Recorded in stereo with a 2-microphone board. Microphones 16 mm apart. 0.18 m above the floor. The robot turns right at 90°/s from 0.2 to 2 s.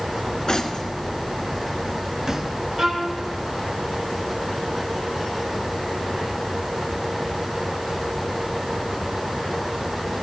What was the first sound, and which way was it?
Cutlery clinking, 55° left (ahead or behind).